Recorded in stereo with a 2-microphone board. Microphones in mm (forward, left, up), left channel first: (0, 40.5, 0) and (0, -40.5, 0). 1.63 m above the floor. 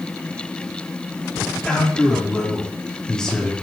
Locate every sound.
1.6 s a man speaking: 10° left (ahead or behind), 5 m